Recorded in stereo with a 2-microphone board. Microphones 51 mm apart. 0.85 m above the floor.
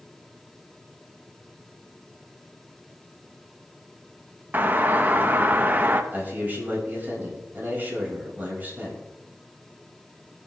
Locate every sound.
4.5 s a doorbell: 35° right (ahead or behind), 1.1 m
6.1 s a man speaking: 35° right (ahead or behind), 5.5 m